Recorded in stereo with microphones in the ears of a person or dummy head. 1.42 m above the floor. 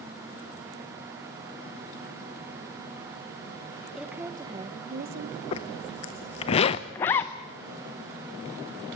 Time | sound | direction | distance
4.0 | a woman speaking | 5° right (ahead or behind) | 1.3 m
5.5 | a zipper | 30° left (ahead or behind) | 0.6 m
7.0 | a zipper | 10° left (ahead or behind) | 0.6 m